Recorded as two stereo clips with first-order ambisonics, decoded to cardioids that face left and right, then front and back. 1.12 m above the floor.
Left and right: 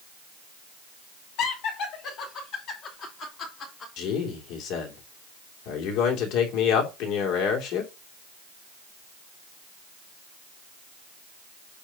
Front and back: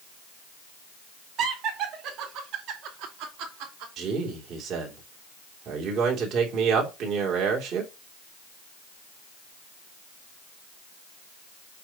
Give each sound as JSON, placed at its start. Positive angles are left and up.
{"t": 1.4, "sound": "laughter", "azimuth_deg": 125, "distance_m": 2.5}
{"t": 4.0, "sound": "a man speaking", "azimuth_deg": 125, "distance_m": 2.5}